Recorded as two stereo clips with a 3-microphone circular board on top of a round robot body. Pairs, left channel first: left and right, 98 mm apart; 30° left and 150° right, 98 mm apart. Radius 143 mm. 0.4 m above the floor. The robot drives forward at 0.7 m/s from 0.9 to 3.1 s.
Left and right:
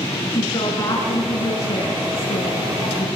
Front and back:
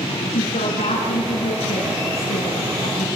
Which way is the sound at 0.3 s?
30° left.